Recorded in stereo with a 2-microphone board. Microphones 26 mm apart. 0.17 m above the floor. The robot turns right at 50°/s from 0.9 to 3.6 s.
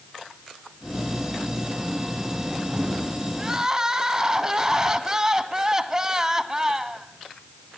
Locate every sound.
3.4 s crying: 15° right (ahead or behind), 1.7 m; by 7.1 s 20° right (ahead or behind), 1.7 m